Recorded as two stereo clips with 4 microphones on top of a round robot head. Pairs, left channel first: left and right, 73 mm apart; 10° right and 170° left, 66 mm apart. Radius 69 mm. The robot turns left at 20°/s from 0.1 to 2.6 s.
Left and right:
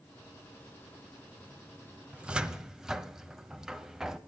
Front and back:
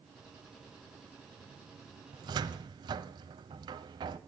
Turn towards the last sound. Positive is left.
turn(degrees=-170)